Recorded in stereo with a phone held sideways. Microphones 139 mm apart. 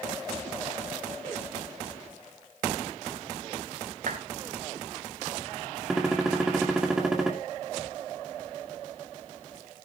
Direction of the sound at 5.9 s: 5° right (ahead or behind).